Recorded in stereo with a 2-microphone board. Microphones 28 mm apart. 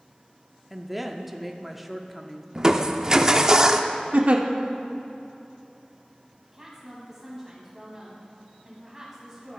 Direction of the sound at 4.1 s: 55° right (ahead or behind).